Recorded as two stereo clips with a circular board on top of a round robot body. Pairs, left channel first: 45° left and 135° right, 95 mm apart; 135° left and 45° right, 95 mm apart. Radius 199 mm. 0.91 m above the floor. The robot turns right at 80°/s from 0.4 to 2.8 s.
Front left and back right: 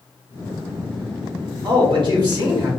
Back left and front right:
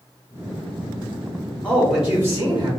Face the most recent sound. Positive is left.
turn(degrees=-60)